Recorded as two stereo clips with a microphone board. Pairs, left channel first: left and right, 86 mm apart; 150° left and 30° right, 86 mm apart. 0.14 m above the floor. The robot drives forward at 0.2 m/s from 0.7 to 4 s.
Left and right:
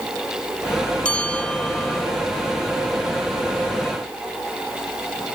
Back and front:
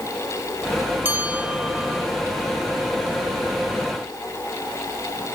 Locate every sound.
1.1 s a bell: 25° left; by 2.1 s 50° left